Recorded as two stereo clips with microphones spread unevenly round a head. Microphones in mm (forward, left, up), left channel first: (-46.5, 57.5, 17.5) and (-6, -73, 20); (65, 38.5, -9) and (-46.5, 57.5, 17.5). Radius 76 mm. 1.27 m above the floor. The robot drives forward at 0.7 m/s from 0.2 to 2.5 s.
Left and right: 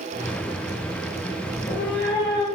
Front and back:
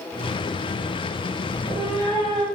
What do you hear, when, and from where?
1.5 s a cat meowing: 115° left, 3.5 m; by 2.5 s 125° left, 4 m